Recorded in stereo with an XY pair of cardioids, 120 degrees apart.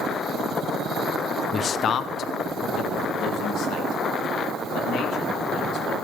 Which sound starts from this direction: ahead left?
A man speaking, at 1.5 s.